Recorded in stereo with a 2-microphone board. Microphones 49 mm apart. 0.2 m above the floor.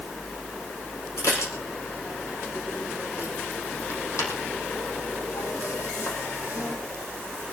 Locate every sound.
1.2 s dishes clattering: 75° left (ahead or behind), 6 m